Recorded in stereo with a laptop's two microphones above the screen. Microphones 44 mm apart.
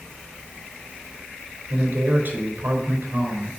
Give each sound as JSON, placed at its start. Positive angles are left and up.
{"t": 1.7, "sound": "a man speaking", "side_deg": -50, "distance_m": 4.0}